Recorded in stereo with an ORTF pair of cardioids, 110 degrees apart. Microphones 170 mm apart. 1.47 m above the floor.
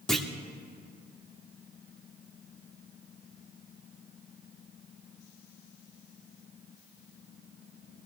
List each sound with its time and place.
0.1 s a clunk: 5° left, 1.8 m